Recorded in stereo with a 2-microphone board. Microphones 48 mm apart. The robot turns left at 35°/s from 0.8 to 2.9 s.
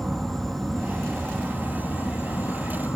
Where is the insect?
Straight behind, 1.7 m; by 3.0 s 105° left, 1.7 m.